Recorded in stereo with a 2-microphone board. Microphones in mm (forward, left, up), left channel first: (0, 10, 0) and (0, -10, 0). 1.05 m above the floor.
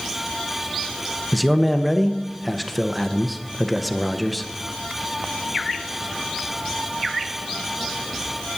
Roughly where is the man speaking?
Centre.